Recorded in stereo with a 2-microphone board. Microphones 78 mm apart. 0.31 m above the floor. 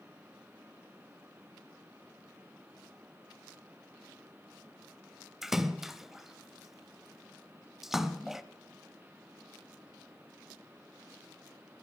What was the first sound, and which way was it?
A splash, 5° right (ahead or behind).